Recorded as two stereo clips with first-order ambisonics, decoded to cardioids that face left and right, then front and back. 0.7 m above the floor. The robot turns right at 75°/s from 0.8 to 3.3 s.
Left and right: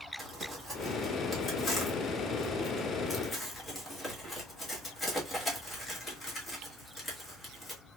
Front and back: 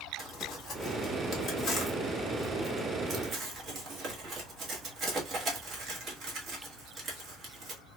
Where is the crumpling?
35° right, 1.2 m; by 7.8 s 150° left, 1.2 m.